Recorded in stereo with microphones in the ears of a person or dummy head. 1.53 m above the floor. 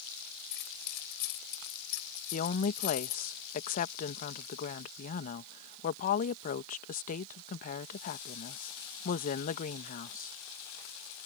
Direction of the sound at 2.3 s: 50° left (ahead or behind).